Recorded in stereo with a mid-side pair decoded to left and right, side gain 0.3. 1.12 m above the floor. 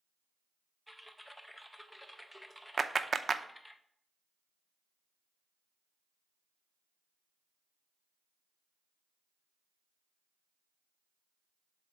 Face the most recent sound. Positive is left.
turn(degrees=-50)